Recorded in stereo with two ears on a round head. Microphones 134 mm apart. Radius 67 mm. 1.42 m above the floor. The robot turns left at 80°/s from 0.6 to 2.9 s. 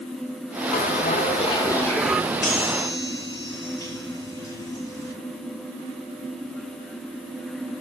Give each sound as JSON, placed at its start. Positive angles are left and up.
{"t": 0.7, "sound": "a bell", "azimuth_deg": 110, "distance_m": 1.2}
{"t": 2.4, "sound": "a chime", "azimuth_deg": 60, "distance_m": 9.5}